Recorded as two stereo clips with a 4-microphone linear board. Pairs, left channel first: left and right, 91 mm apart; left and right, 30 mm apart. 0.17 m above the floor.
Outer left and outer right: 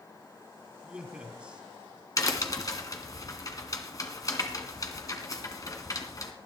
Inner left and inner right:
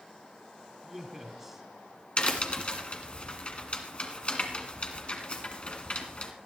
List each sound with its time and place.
0.8 s a man speaking: 15° right (ahead or behind), 1.3 m
2.2 s a crack: 40° left (ahead or behind), 1.8 m